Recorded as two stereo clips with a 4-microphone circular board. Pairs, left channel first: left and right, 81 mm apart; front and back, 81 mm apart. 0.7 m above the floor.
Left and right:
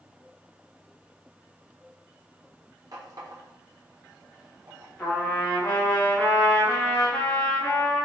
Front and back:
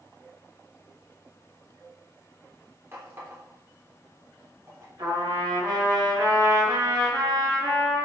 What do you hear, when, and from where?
2.9 s a running tap: 120° right, 1.3 m
5.0 s a trumpet: 155° left, 1.5 m